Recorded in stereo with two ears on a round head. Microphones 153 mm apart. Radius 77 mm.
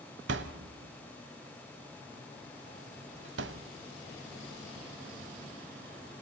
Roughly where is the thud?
Right.